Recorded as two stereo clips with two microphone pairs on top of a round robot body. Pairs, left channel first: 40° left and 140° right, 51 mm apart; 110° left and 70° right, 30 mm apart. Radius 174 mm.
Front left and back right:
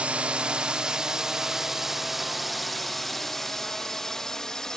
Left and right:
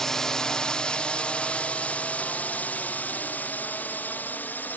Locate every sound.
0.0 s a drone: 165° right; by 4.8 s 120° left